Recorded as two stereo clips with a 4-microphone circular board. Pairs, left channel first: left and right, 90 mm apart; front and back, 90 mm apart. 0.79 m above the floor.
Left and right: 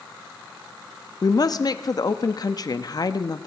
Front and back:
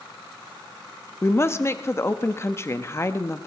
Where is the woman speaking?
55° left, 0.8 m.